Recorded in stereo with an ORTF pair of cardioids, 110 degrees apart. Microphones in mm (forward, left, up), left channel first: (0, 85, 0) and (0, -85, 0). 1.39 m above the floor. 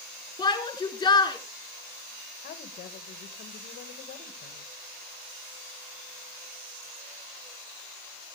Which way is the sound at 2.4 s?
60° left.